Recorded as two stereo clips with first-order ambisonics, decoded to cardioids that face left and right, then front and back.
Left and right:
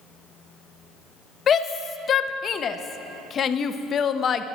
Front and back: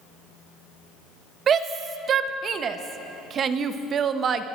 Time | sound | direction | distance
1.5 | a shout | 135° left | 0.6 m